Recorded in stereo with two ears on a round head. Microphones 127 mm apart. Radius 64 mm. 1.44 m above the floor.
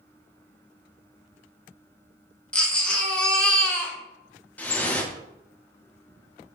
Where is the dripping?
10° left (ahead or behind), 0.5 m.